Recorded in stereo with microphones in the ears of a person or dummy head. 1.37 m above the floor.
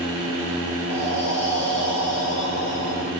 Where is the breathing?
85° left, 2.5 m.